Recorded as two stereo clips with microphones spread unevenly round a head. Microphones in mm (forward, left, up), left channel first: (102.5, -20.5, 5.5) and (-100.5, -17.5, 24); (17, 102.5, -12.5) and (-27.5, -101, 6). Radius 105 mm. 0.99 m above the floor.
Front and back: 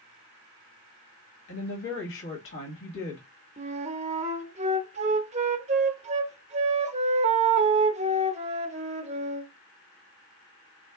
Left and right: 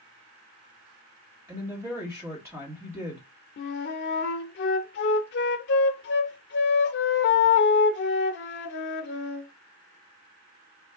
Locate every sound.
1.5 s a woman speaking: 25° right, 1.7 m
3.6 s a flute: 120° left, 0.5 m